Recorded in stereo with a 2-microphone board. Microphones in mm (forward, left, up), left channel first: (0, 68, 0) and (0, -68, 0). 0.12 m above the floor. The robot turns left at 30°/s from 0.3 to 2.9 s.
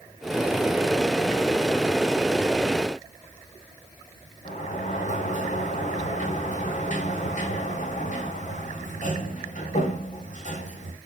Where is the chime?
No chime in this recording.